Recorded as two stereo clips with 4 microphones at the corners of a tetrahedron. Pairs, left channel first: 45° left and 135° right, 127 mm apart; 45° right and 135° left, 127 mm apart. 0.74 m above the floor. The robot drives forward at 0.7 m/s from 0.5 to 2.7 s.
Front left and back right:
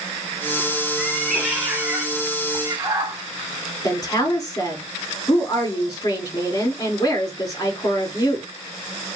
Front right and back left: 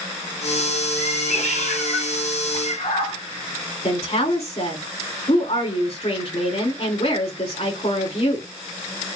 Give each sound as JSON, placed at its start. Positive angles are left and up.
{"t": 1.0, "sound": "a cat meowing", "azimuth_deg": -40, "distance_m": 2.0}
{"t": 3.8, "sound": "a woman speaking", "azimuth_deg": -15, "distance_m": 2.5}